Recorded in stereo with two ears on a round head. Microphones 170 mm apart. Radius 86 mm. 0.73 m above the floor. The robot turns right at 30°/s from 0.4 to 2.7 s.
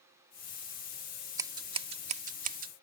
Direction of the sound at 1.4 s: 20° right (ahead or behind).